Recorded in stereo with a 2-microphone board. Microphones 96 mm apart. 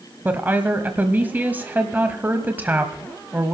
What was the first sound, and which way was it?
A woman speaking, 20° right (ahead or behind).